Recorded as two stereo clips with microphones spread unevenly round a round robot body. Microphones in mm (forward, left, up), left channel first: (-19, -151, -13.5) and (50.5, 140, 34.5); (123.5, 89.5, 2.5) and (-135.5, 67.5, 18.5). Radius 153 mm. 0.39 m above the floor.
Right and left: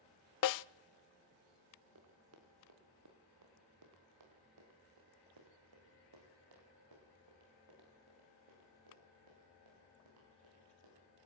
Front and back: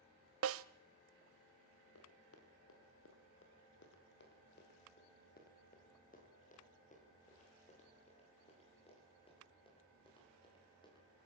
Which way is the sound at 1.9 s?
35° left.